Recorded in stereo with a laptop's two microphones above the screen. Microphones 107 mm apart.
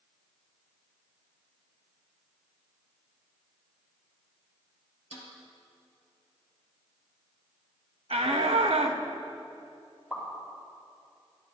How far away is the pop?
About 4 m.